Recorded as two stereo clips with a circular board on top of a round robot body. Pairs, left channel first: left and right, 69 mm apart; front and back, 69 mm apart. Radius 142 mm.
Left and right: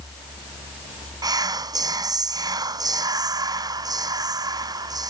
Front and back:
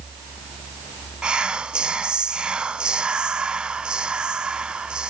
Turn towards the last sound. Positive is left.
turn(degrees=-105)